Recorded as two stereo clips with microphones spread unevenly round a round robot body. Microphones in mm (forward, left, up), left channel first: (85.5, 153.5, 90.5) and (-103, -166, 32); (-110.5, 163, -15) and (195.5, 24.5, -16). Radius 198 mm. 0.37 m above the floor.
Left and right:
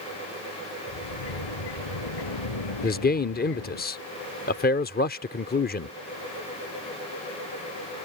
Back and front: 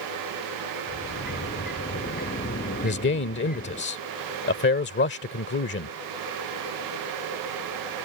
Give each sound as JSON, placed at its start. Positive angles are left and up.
{"t": 0.9, "sound": "a sliding door", "azimuth_deg": 90}
{"t": 2.8, "sound": "a man speaking", "azimuth_deg": 125}